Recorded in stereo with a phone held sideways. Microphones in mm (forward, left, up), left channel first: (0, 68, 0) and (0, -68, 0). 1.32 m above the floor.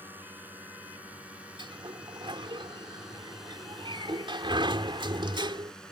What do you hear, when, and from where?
0.0 s a drone: 15° right (ahead or behind); by 5.9 s 5° left (ahead or behind)
1.6 s a sliding door: 35° right (ahead or behind)